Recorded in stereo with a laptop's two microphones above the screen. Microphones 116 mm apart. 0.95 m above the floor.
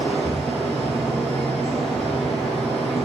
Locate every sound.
0.0 s a fan: centre (ahead or behind), 1.4 m